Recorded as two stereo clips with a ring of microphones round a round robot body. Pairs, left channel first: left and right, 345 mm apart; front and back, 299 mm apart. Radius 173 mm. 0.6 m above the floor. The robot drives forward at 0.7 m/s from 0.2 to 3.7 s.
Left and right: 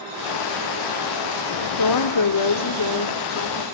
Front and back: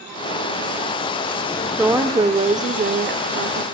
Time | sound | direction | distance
1.8 | a woman speaking | 95° left | 1.6 m